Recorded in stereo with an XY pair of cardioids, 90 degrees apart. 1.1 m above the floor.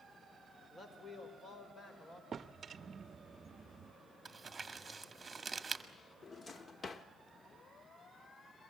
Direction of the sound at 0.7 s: 30° left.